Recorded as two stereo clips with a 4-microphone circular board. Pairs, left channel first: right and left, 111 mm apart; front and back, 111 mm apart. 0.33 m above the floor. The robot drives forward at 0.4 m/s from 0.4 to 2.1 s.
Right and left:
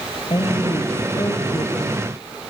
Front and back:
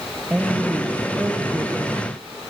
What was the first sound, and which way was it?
A woman speaking, 105° right.